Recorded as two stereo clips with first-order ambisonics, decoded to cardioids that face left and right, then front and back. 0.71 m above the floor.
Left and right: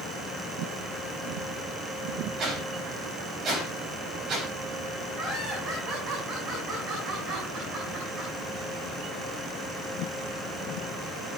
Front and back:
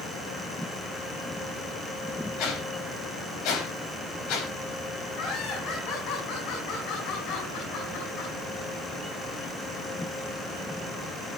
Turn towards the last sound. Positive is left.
turn(degrees=-35)